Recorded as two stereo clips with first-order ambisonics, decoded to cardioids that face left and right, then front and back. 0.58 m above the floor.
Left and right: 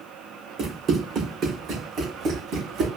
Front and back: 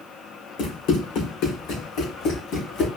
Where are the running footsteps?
15° right, 2.5 m; by 2.9 s 45° right, 2.5 m.